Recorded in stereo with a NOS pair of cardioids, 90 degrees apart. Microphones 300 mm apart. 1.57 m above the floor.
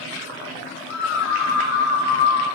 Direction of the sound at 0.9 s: 55° left.